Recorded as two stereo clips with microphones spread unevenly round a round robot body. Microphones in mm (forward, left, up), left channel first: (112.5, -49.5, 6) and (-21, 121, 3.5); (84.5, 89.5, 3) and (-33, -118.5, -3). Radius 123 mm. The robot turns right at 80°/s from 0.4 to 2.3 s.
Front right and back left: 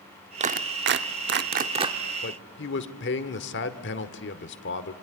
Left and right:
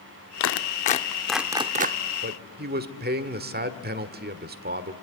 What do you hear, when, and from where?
0.4 s a clap: 75° left, 0.8 m; by 2.0 s 155° right, 0.8 m
2.2 s a man speaking: 85° right, 1.3 m; by 4.9 s 80° right, 1.3 m